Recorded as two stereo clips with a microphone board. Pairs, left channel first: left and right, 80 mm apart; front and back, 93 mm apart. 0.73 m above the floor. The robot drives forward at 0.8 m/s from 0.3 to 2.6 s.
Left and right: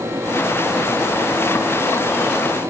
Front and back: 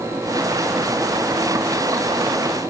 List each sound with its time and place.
Only background noise.